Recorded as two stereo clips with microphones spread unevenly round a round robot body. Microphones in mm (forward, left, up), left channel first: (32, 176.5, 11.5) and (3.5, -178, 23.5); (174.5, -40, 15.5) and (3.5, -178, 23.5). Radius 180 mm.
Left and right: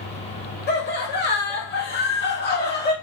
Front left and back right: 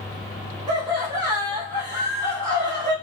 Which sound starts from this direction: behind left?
Laughter, at 0.7 s.